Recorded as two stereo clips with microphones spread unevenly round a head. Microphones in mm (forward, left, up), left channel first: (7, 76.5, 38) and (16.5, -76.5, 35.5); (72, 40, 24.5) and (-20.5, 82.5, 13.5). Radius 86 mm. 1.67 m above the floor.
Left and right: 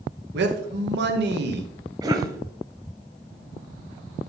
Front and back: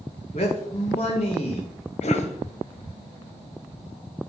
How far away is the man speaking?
About 1.2 m.